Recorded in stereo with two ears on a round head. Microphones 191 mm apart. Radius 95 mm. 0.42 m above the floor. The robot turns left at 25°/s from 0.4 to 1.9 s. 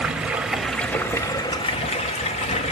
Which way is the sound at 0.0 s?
175° right.